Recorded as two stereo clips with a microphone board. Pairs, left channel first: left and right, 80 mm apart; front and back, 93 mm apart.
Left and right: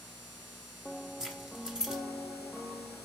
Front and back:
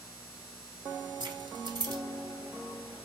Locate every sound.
1.2 s keys jangling: 170° right, 1.4 m